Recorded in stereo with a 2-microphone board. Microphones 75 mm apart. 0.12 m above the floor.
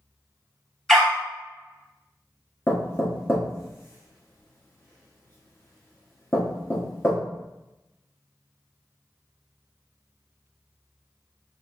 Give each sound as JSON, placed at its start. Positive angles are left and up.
{"t": 0.9, "sound": "a dog barking", "side_deg": 10, "distance_m": 1.2}
{"t": 2.7, "sound": "knocking", "side_deg": 35, "distance_m": 1.3}